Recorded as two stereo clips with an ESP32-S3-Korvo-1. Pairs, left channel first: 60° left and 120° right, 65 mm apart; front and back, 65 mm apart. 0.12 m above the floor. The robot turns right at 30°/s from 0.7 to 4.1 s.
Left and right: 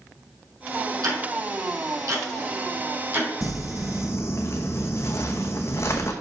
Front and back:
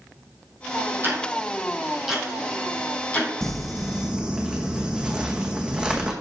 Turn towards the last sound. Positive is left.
turn(degrees=105)